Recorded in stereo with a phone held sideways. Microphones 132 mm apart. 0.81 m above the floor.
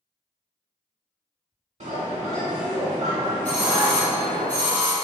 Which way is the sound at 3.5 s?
10° left (ahead or behind).